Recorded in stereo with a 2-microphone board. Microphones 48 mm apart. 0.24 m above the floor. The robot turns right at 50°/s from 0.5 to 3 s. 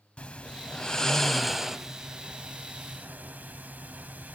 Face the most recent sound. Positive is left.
turn(degrees=-105)